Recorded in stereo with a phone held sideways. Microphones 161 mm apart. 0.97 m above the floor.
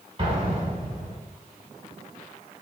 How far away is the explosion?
About 1.2 m.